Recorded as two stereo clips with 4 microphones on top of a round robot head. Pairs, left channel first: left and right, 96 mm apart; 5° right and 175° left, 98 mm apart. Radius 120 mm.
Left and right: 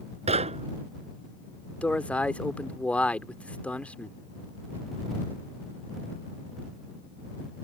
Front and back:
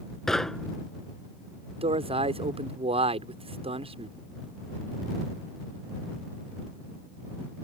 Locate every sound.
0.3 s knocking: 95° right
1.8 s a man speaking: 165° left